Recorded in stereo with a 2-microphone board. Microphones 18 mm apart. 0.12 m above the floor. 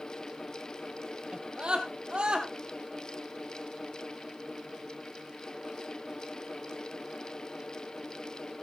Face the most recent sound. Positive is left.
turn(degrees=-65)  # may be behind; listen again after turning